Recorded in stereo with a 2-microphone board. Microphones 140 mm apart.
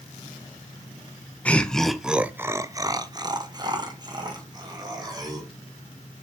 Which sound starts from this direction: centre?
Laughter, at 1.4 s.